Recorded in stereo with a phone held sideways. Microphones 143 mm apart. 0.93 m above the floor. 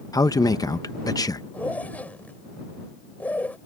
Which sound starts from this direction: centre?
A zipper, at 1.5 s.